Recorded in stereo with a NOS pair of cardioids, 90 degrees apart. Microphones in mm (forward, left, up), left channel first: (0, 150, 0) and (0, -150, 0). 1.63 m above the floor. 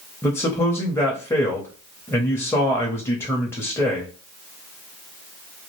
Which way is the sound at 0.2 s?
10° left.